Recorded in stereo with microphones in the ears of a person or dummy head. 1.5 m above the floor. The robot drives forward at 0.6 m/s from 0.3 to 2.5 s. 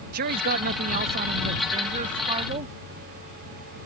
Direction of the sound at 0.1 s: 55° right (ahead or behind).